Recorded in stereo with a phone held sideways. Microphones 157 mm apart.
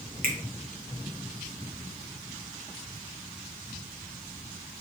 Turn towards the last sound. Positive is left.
turn(degrees=-65)  # may be behind; listen again after turning